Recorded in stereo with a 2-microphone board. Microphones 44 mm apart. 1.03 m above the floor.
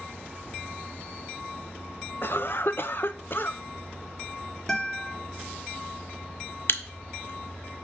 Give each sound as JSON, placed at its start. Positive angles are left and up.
{"t": 2.2, "sound": "a cough", "side_deg": 55, "distance_m": 0.5}
{"t": 4.7, "sound": "a guitar", "side_deg": 10, "distance_m": 1.2}
{"t": 6.7, "sound": "a camera shutter", "side_deg": 60, "distance_m": 0.7}